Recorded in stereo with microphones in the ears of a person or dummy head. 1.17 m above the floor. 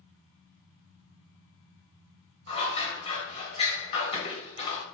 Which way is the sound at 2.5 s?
30° left (ahead or behind).